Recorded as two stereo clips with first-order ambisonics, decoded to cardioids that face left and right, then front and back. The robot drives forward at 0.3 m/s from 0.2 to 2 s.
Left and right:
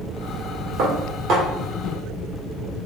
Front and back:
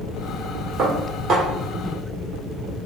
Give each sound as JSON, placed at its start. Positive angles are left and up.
{"t": 0.8, "sound": "dishes clattering", "azimuth_deg": -115, "distance_m": 1.6}